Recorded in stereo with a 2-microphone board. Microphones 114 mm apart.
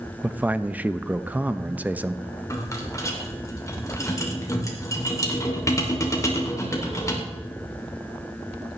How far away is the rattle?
About 2.5 m.